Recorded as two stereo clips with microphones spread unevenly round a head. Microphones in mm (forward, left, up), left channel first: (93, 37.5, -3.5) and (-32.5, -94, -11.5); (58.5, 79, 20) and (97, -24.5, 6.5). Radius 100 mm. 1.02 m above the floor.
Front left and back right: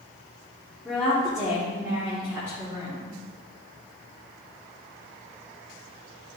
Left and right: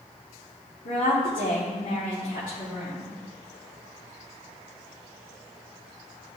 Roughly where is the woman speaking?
Behind left.